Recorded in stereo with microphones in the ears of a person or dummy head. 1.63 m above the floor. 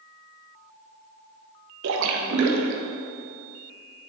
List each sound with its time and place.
1.8 s a splash: 70° right (ahead or behind), 0.8 m